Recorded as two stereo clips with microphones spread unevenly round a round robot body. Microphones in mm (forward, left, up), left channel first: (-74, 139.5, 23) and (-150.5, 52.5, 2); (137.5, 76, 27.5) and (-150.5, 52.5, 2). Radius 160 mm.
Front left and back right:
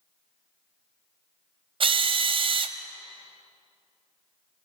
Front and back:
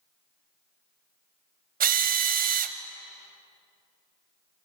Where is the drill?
125° right, 0.8 m.